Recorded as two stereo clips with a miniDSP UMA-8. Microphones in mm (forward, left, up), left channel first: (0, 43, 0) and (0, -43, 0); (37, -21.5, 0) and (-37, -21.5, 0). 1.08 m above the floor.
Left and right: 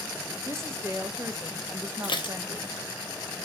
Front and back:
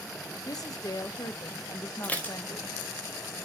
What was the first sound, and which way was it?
A woman speaking, 30° right.